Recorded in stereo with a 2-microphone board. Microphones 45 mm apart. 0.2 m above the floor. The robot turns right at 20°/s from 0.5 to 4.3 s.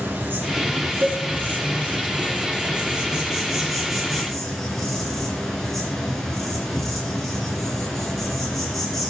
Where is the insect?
70° right, 2.5 m; by 9.1 s 5° left, 2.5 m.